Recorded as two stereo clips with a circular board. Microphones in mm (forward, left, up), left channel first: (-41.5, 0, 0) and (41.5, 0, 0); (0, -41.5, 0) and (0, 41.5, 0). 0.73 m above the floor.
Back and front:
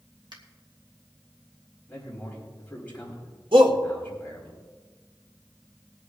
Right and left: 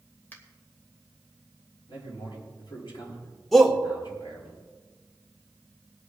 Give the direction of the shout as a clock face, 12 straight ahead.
12 o'clock.